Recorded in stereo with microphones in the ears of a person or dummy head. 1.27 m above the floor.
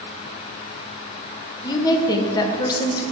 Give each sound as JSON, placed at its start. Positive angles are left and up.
{"t": 1.6, "sound": "a woman speaking", "side_deg": 20, "distance_m": 1.2}